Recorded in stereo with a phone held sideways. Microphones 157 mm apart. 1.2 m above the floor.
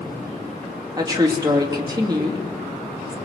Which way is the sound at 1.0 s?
25° right (ahead or behind).